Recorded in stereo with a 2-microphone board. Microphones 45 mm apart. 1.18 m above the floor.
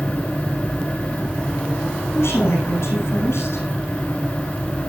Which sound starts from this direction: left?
A woman speaking, at 2.1 s.